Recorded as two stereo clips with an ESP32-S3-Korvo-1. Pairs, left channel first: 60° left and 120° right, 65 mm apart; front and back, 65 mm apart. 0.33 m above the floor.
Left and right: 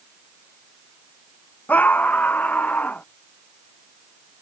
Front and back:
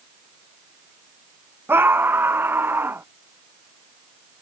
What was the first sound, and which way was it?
A scream, 125° left.